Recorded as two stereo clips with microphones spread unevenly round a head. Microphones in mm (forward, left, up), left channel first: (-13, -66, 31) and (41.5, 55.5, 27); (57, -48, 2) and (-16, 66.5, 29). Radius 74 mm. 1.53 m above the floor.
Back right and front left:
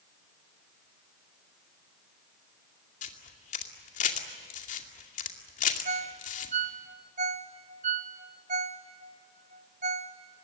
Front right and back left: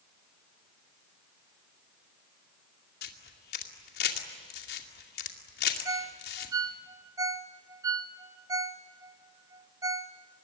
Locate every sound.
3.0 s a camera shutter: 85° right, 2.5 m
5.8 s a ringtone: 85° left, 0.9 m